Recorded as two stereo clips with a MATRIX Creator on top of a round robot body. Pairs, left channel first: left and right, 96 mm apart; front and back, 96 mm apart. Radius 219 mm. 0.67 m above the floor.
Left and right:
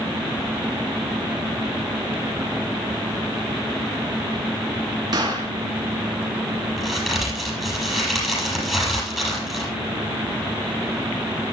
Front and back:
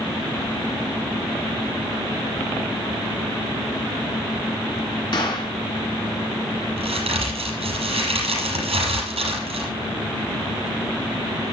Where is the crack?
Straight behind, 6.5 m.